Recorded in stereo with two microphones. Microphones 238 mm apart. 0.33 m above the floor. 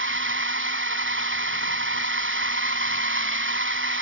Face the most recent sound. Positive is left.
turn(degrees=-55)  # may be behind; listen again after turning